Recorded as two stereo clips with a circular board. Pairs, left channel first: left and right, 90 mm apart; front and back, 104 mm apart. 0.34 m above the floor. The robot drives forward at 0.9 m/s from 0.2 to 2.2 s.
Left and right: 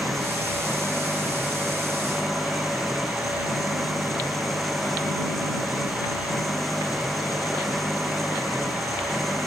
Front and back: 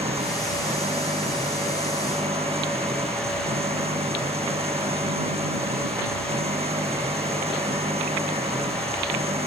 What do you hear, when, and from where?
0.0 s an engine running: 175° left